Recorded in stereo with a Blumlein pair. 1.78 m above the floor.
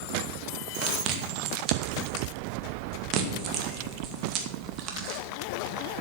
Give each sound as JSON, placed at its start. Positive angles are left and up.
{"t": 0.8, "sound": "chewing", "azimuth_deg": -35, "distance_m": 2.0}